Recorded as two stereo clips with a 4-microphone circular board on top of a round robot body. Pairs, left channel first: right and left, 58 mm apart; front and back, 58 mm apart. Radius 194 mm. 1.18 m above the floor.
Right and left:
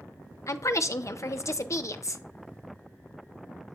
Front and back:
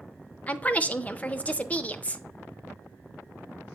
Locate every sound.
0.5 s a woman speaking: 65° right, 0.7 m